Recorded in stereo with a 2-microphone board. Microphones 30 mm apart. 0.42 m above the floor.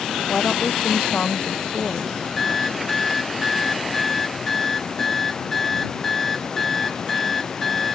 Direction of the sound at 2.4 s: 10° left (ahead or behind).